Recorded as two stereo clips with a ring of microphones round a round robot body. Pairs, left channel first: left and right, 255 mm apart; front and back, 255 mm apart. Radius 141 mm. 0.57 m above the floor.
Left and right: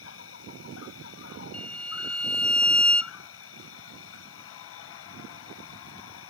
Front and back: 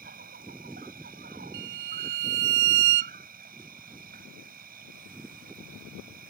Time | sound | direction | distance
0.0 | an insect | 120° left | ?
1.5 | a violin | 175° left | ?